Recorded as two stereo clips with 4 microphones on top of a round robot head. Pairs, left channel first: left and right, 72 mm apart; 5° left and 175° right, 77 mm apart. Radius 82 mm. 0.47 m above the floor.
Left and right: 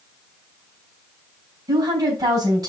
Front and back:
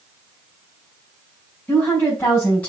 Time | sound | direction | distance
1.7 | a woman speaking | 65° right | 4 m